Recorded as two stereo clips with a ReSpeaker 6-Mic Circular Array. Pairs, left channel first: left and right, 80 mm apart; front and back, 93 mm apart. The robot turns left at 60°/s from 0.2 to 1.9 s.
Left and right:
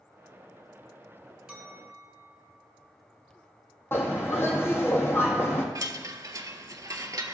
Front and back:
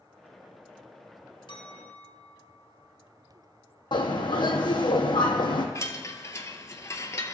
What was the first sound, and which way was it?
A clink, 10° right.